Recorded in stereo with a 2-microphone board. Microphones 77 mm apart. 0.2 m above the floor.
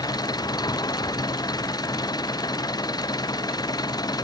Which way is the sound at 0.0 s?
60° left (ahead or behind).